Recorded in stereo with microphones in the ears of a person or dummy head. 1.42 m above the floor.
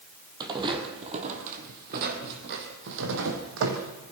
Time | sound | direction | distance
0.4 | footsteps | 25° right (ahead or behind) | 3 m